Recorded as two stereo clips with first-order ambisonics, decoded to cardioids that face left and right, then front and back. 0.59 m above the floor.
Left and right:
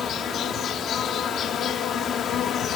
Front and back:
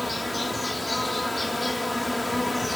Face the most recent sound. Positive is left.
turn(degrees=85)